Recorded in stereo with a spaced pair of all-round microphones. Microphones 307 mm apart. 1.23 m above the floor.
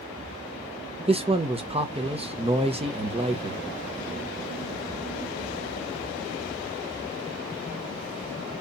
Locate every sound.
1.1 s a man speaking: 20° right (ahead or behind), 0.9 m